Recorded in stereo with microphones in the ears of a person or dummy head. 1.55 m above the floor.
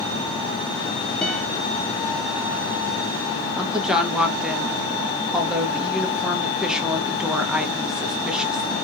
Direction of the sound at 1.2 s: 5° left (ahead or behind).